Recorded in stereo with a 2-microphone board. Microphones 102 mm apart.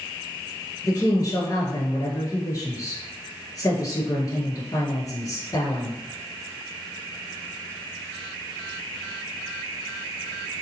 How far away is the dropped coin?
No dropped coin in this recording.